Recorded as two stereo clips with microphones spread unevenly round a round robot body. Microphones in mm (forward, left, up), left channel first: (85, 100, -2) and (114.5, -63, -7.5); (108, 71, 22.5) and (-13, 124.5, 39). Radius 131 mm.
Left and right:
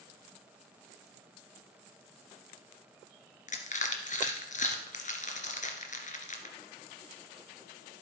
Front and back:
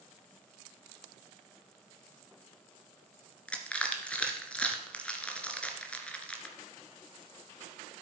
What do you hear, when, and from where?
3.5 s crushing: 60° left, 2.5 m